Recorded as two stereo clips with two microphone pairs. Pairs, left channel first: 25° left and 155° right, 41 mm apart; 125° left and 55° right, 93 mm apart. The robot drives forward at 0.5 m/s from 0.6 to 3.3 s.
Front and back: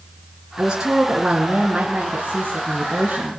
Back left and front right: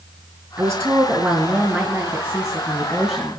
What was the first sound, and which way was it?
A woman speaking, 95° right.